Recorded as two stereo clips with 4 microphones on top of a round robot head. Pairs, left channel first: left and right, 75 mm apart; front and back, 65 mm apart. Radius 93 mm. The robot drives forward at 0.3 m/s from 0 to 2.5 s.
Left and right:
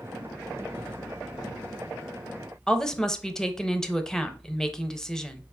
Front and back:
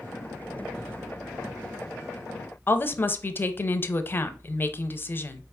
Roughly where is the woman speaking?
Ahead.